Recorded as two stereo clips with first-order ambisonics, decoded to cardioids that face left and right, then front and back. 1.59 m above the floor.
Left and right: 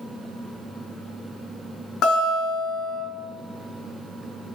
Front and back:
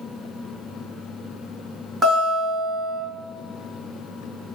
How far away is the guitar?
About 1.9 m.